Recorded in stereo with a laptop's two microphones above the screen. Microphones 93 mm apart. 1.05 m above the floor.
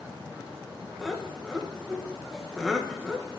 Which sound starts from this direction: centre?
Laughter, at 1.0 s.